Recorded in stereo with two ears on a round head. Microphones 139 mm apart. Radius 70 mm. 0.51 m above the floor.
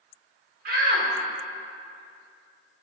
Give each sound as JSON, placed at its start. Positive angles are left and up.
{"t": 0.7, "sound": "a shout", "side_deg": -55, "distance_m": 1.2}